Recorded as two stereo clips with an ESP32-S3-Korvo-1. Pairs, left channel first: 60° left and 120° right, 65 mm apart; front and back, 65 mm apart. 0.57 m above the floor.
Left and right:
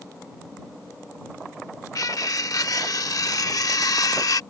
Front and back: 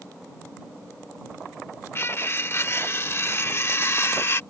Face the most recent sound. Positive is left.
turn(degrees=45)